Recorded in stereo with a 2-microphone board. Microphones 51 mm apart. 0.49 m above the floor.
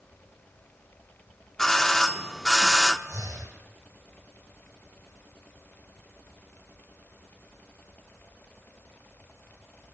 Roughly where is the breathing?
Right.